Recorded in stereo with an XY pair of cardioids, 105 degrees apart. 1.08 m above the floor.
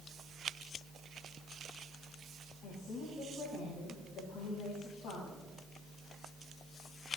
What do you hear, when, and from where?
2.6 s a woman speaking: 70° left, 10 m